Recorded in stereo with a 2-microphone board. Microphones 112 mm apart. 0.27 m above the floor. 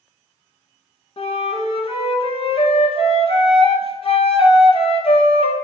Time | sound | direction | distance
1.2 | a flute | 55° left (ahead or behind) | 0.6 m